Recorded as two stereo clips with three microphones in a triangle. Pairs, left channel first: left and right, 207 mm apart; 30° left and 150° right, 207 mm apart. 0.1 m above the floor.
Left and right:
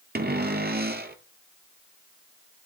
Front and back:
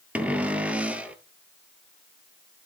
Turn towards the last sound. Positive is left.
turn(degrees=-65)